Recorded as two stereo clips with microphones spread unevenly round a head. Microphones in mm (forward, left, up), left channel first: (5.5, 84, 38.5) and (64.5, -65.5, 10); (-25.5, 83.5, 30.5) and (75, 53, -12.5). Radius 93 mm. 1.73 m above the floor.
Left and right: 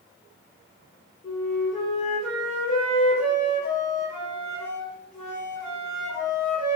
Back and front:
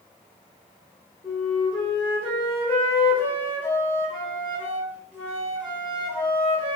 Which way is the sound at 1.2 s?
135° left.